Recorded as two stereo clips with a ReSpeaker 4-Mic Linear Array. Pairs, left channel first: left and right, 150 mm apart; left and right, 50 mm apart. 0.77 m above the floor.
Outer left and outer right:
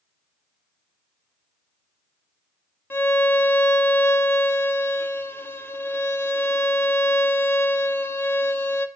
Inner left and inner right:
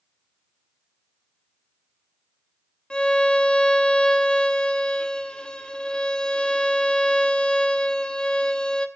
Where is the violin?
15° left (ahead or behind), 0.9 m.